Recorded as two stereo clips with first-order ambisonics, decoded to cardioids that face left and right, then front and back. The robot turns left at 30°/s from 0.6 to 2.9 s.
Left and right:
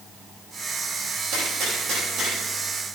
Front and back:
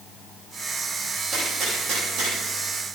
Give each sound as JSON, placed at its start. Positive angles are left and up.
{"t": 1.3, "sound": "a gunshot", "azimuth_deg": -115, "distance_m": 7.0}